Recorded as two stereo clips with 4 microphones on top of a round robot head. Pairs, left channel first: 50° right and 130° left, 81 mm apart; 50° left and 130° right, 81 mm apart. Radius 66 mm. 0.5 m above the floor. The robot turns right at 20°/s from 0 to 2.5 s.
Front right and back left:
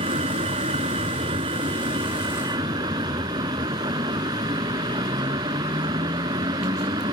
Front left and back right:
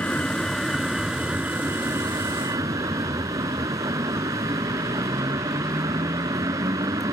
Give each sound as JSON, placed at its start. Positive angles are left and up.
{"t": 0.0, "sound": "a vehicle", "azimuth_deg": 125}